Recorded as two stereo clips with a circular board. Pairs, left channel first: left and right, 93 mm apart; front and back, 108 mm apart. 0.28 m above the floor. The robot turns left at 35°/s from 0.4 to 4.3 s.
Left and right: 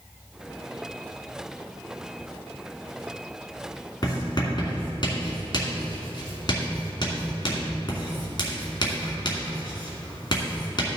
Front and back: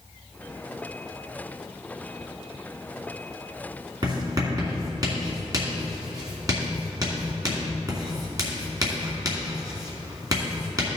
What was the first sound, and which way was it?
Writing, 135° left.